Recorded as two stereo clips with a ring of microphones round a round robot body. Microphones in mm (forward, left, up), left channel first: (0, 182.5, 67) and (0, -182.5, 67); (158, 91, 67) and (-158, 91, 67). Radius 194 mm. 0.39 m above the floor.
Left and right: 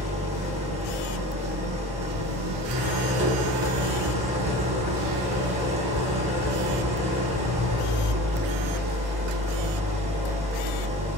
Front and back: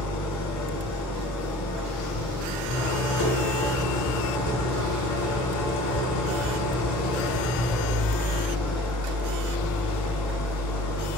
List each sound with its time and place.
0.0 s an engine running: 20° right, 0.7 m